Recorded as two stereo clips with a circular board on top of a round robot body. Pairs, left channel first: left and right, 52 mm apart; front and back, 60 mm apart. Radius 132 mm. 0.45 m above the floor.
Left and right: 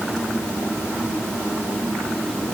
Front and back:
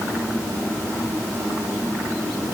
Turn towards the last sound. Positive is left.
No sound to turn to.